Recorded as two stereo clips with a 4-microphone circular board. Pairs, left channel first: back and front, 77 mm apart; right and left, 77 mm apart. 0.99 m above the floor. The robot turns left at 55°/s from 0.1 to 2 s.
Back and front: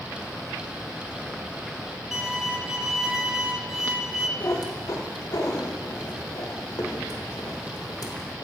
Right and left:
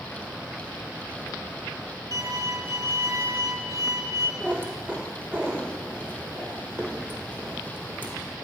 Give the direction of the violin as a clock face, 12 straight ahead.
9 o'clock.